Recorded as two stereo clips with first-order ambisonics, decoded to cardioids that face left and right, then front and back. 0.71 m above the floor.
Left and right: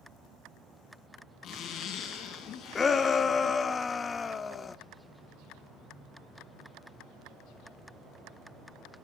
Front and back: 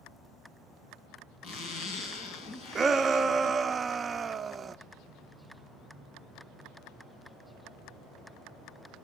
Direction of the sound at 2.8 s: 135° left.